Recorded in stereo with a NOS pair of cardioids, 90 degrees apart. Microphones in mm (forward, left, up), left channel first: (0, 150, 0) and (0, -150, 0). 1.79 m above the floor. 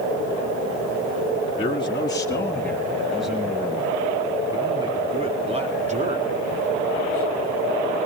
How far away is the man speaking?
About 3 m.